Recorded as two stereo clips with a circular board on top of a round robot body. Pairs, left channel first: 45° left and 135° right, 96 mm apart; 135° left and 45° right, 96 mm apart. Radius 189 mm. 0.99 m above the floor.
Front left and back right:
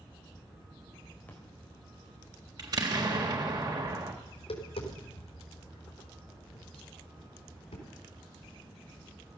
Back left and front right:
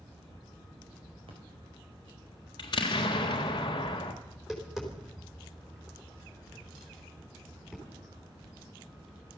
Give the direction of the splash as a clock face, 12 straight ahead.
1 o'clock.